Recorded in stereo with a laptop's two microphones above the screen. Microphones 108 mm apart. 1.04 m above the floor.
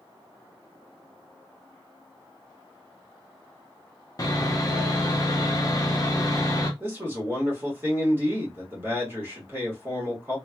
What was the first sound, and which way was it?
Sawing, 35° left (ahead or behind).